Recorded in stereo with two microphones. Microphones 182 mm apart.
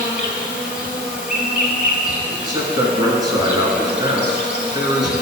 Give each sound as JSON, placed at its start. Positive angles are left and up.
{"t": 0.0, "sound": "an insect", "side_deg": 50, "distance_m": 1.6}
{"t": 2.3, "sound": "a man speaking", "side_deg": -25, "distance_m": 1.4}